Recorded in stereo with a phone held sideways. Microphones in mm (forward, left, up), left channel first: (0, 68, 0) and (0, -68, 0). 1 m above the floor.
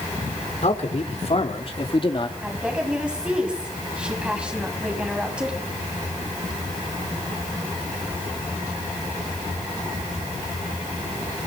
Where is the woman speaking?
10° right (ahead or behind), 7 m.